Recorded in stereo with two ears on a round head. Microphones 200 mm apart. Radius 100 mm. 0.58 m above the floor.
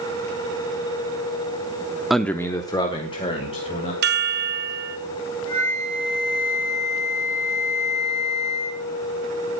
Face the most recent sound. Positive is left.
turn(degrees=65)  # may be behind; listen again after turning